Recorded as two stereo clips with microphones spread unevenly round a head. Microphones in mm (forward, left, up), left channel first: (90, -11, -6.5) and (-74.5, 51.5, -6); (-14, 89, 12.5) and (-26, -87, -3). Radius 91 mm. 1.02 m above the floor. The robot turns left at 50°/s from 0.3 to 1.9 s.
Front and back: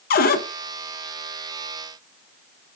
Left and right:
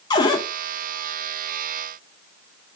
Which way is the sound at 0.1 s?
15° left.